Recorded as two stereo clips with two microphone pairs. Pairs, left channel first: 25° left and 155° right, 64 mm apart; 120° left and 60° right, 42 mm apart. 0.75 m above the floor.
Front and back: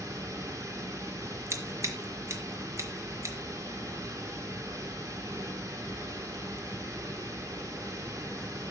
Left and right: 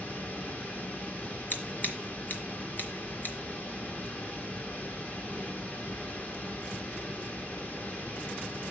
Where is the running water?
175° left, 2 m.